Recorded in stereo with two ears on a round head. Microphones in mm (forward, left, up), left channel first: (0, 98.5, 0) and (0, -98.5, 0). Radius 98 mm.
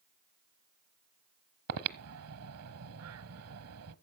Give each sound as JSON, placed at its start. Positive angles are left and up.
{"t": 1.7, "sound": "breathing", "side_deg": -75, "distance_m": 1.1}